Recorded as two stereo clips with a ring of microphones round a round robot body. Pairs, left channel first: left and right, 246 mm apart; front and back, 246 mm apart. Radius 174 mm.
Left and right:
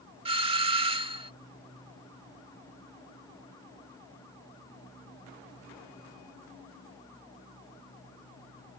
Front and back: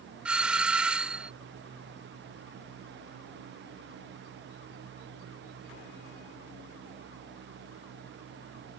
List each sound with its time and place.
0.2 s a doorbell: 100° right